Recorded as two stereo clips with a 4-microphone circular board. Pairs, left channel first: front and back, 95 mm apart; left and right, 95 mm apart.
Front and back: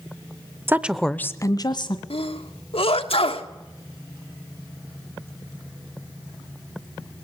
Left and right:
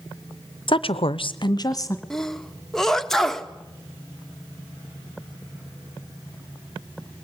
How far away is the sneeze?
About 1.4 m.